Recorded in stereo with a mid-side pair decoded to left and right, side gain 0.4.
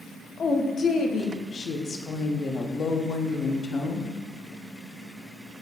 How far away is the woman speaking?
About 0.7 m.